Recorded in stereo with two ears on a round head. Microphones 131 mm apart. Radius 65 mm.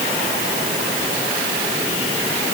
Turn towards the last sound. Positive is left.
No sound to turn to.